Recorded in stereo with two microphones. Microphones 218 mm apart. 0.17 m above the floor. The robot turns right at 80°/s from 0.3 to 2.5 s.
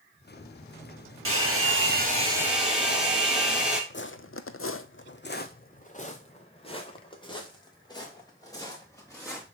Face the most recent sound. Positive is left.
turn(degrees=15)  # may be behind; listen again after turning